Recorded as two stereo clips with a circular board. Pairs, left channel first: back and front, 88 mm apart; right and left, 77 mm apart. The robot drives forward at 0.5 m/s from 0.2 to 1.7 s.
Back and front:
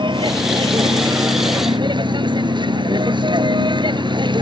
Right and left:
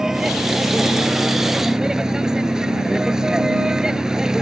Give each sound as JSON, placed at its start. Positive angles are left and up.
{"t": 0.0, "sound": "a vehicle", "azimuth_deg": 5}